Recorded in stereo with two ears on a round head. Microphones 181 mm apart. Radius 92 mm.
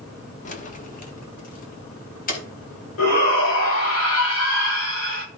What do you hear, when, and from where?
0.5 s keys jangling: 40° left (ahead or behind), 1.5 m; by 2.4 s 45° left (ahead or behind), 4.5 m
3.0 s a shout: 75° left (ahead or behind), 8 m